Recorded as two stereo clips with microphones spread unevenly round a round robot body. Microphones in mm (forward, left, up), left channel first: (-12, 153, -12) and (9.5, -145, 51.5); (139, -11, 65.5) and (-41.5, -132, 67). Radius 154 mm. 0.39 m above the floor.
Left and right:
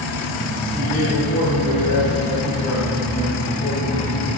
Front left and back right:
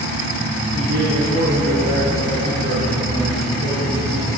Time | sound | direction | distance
0.7 | a man speaking | 175° left | 4.5 m